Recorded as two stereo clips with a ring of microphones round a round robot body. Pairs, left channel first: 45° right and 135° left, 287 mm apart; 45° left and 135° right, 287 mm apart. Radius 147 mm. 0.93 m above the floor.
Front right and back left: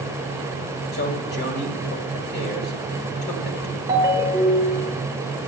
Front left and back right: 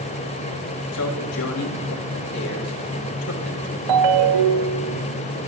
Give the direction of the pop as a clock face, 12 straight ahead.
No pop in this recording.